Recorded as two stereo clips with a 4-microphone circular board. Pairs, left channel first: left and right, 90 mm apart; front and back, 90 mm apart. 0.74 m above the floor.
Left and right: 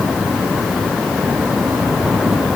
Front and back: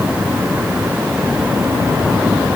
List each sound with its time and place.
Only background noise.